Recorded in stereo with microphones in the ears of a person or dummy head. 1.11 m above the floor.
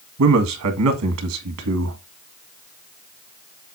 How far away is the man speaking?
About 1.7 m.